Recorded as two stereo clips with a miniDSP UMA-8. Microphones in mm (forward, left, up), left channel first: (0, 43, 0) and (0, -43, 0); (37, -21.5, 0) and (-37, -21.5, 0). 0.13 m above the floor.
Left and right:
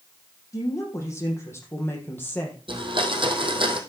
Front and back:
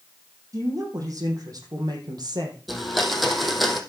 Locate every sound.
0.5 s a woman speaking: 140° left, 4.5 m; by 2.6 s 160° left, 3 m
2.7 s a blender: 90° right, 2 m